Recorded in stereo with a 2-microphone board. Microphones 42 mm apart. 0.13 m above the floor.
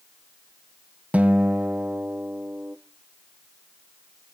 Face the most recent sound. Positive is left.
turn(degrees=-35)  # may be behind; listen again after turning